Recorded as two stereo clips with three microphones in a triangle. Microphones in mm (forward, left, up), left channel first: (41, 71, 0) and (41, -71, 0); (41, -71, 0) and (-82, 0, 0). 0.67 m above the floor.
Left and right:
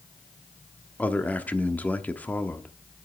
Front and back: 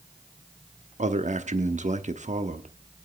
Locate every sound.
1.0 s a man speaking: 165° left, 0.9 m